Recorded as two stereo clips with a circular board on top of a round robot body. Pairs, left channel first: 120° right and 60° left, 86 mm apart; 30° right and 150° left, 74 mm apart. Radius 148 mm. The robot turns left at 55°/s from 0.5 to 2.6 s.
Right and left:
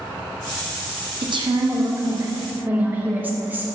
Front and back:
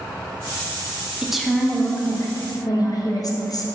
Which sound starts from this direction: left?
A woman speaking, at 1.2 s.